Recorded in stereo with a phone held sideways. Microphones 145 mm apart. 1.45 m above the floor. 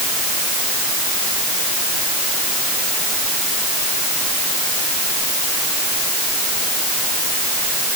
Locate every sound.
Only background noise.